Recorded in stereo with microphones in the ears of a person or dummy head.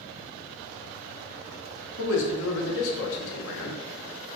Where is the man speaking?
70° left (ahead or behind), 0.5 m.